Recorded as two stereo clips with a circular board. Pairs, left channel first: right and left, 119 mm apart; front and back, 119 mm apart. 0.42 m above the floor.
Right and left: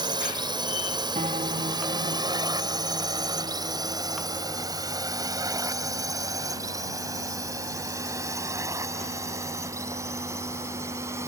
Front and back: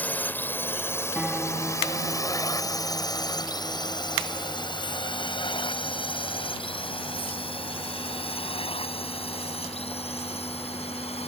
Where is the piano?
95° left.